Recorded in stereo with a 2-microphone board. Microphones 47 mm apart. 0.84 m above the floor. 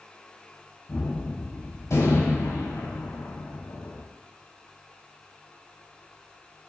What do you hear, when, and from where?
0.9 s a gunshot: 85° left, 4 m